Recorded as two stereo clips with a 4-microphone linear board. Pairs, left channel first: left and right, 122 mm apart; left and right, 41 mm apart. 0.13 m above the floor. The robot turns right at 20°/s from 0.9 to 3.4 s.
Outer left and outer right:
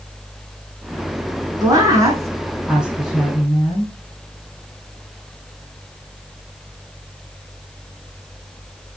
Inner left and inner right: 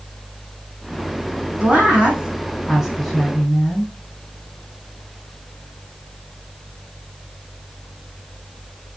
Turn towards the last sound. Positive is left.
turn(degrees=5)